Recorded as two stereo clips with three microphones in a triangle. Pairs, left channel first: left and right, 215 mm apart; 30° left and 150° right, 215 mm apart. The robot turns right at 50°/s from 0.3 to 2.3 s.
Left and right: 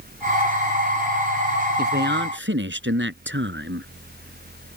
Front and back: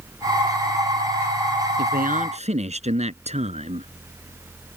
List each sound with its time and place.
1.8 s a man speaking: 120° right; by 4.8 s 95° right